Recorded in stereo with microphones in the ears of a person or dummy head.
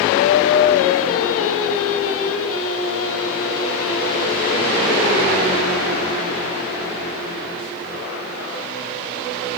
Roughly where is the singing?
Left.